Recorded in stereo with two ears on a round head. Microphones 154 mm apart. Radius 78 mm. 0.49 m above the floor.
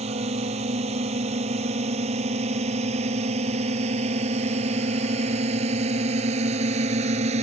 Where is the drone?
35° right (ahead or behind); by 7.4 s 40° right (ahead or behind).